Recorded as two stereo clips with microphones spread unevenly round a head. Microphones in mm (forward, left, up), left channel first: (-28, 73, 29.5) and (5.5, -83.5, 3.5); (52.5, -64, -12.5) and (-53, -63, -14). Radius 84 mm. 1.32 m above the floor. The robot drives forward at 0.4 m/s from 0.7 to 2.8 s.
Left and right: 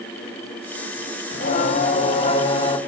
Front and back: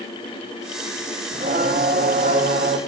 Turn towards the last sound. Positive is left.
turn(degrees=160)